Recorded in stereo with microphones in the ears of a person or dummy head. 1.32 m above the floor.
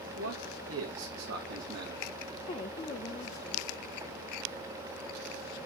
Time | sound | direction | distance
0.2 | a man speaking | 70° right (ahead or behind) | 2 m
2.5 | a woman speaking | 30° left (ahead or behind) | 0.9 m